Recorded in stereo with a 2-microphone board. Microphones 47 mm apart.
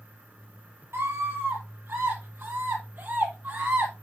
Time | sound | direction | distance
0.9 | a scream | 50° right (ahead or behind) | 5 m